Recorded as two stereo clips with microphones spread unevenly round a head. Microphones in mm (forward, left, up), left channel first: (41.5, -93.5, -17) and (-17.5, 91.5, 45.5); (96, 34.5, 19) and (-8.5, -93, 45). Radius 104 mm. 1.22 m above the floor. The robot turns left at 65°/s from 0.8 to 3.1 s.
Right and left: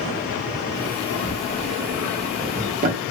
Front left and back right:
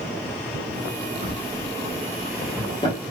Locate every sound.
1.2 s a drawer: 130° right, 1.1 m; by 3.0 s 110° left, 1.1 m